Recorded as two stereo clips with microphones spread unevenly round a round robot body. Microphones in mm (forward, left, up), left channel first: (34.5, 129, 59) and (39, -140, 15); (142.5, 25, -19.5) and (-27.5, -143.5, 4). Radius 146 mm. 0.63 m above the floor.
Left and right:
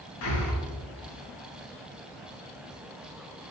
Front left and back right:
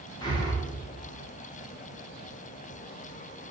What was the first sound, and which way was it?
Breathing, 110° left.